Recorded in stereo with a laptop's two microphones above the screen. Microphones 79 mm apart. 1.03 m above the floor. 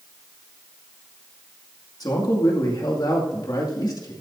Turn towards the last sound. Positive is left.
turn(degrees=55)  # may be behind; listen again after turning